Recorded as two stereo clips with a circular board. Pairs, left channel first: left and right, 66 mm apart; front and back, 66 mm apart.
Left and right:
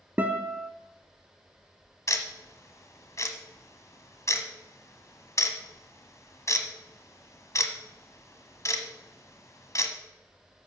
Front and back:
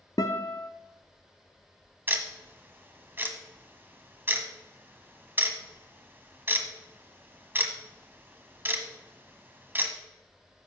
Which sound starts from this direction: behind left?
Ticking, at 2.1 s.